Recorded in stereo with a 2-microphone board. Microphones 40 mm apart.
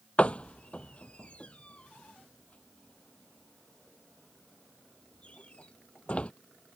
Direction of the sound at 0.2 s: 35° left (ahead or behind).